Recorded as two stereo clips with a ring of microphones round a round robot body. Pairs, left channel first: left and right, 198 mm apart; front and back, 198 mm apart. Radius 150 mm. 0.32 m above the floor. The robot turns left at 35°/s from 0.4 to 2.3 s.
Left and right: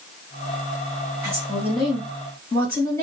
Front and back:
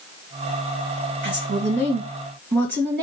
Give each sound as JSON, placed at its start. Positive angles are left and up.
{"t": 1.2, "sound": "a woman speaking", "azimuth_deg": -160, "distance_m": 2.0}